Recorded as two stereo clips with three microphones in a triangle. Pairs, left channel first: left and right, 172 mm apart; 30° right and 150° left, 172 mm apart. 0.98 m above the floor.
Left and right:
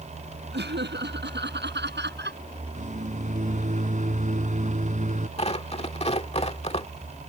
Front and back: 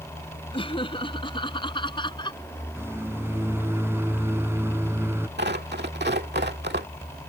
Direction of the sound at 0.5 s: 90° right.